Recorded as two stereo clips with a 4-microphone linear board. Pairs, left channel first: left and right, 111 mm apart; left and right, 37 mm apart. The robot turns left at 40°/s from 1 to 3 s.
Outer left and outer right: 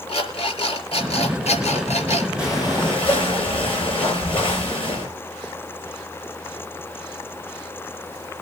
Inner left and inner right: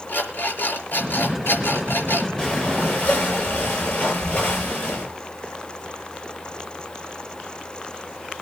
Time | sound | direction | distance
0.1 | an alarm clock | 125° left | 4.5 m
2.4 | breathing | 30° left (ahead or behind) | 8.5 m